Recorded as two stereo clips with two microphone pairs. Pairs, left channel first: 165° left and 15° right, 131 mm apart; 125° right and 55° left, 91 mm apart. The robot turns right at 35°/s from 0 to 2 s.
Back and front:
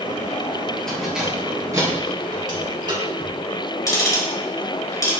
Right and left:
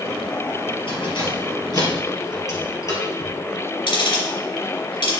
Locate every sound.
0.9 s keys jangling: 110° right, 3 m; by 3.3 s 70° right, 3 m
3.9 s ticking: 135° right, 3.5 m